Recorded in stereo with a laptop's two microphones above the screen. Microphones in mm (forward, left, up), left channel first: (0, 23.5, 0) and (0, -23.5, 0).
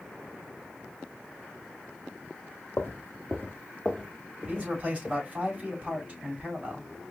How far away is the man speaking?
About 3.5 m.